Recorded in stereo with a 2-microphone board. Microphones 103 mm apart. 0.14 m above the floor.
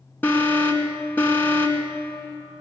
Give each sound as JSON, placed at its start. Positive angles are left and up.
{"t": 0.2, "sound": "an alarm", "side_deg": 20, "distance_m": 1.7}